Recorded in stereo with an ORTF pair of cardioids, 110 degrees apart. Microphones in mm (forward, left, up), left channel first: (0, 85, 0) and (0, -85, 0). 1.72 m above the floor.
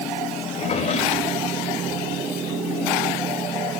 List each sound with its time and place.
0.5 s a drawer: 40° left, 3.5 m